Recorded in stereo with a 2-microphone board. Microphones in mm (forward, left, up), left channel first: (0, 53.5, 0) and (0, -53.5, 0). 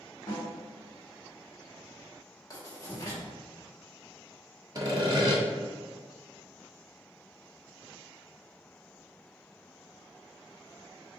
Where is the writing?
35° left (ahead or behind), 1.5 m.